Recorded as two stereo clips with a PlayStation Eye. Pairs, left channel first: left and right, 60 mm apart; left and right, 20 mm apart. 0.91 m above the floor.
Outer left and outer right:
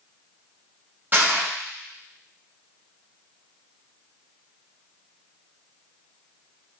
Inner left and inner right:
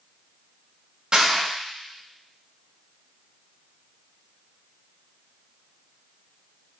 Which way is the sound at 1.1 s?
35° right (ahead or behind).